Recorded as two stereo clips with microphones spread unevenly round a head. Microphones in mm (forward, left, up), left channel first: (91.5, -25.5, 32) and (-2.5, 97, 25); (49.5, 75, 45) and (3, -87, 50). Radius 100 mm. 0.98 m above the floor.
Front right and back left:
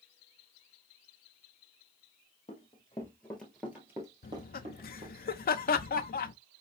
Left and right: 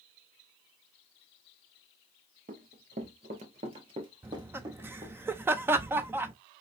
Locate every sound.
2.5 s running footsteps: 90° right, 1.1 m; by 5.2 s straight behind, 1.6 m
4.2 s laughter: 30° right, 0.6 m